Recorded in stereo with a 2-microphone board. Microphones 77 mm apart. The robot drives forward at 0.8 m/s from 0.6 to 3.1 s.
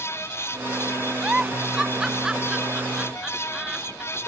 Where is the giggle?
10° right (ahead or behind); by 4.3 s 5° right (ahead or behind).